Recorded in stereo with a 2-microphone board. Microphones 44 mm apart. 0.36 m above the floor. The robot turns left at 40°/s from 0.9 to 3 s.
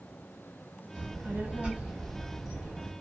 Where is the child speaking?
120° right, 1.6 m; by 2.9 s 160° left, 1.6 m.